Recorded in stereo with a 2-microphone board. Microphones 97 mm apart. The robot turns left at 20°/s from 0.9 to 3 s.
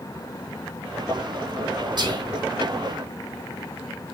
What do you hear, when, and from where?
2.0 s whispering: 50° right (ahead or behind), 2.5 m; by 2.2 s 45° right (ahead or behind), 2.5 m